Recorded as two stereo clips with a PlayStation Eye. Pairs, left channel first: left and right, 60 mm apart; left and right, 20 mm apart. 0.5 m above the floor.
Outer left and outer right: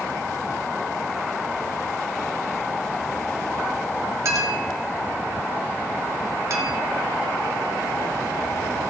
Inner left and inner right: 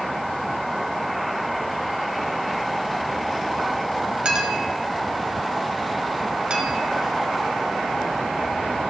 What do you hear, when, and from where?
4.2 s a clink: 55° right (ahead or behind), 1.5 m